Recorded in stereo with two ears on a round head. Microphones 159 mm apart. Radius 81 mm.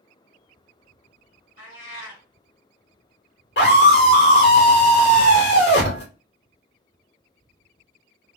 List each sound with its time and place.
1.6 s a cat meowing: 80° left, 1.7 m
3.6 s a scream: 60° left (ahead or behind), 2 m